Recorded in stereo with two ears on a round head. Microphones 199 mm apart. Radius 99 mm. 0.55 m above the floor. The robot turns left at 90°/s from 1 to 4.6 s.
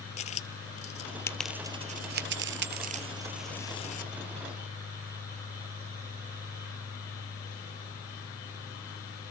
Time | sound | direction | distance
0.2 | a dropped coin | 30° left (ahead or behind) | 0.8 m